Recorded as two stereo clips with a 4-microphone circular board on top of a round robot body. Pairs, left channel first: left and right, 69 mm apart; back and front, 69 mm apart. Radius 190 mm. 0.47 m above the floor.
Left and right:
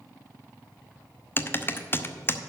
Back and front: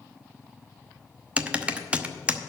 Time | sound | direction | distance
1.4 | typing on a keyboard | 60° left | 1.2 m